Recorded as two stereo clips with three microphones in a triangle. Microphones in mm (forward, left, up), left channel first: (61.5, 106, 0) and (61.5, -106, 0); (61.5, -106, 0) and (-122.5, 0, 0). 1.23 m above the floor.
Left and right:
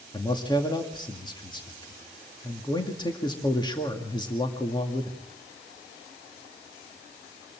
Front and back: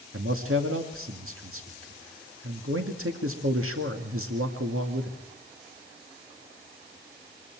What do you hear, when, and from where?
0.1 s a man speaking: 160° left, 2.0 m